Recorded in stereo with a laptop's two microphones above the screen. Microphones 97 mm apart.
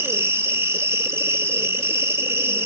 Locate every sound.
0.0 s an insect: 25° right (ahead or behind), 1.3 m